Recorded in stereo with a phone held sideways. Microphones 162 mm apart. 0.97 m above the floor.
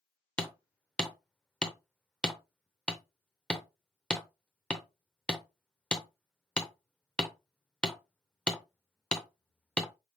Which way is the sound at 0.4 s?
5° left (ahead or behind).